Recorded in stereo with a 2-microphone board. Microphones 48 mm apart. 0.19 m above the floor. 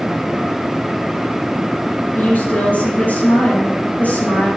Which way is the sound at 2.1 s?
40° left (ahead or behind).